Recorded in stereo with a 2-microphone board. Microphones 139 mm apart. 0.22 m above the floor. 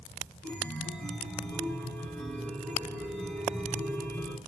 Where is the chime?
10° left (ahead or behind), 2.5 m.